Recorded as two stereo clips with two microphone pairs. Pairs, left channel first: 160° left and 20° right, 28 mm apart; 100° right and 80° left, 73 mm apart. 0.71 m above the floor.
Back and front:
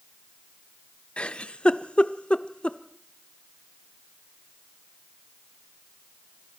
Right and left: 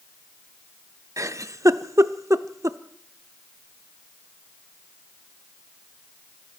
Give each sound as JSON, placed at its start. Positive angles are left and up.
{"t": 1.2, "sound": "a giggle", "azimuth_deg": 120, "distance_m": 0.7}